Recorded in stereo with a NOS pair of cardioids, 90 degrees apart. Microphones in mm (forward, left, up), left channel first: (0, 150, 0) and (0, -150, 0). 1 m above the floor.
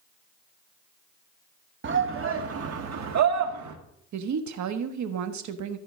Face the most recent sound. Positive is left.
turn(degrees=-65)